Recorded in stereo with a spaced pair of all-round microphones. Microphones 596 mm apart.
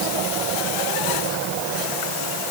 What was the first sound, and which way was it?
Only background noise.